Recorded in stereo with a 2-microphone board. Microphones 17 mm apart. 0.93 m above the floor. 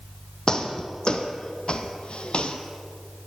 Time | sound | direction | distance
0.5 | footsteps | 35° left (ahead or behind) | 2.5 m